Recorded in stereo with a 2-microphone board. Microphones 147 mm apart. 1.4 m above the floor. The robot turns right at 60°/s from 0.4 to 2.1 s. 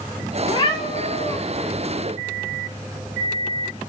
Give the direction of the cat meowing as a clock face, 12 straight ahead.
10 o'clock.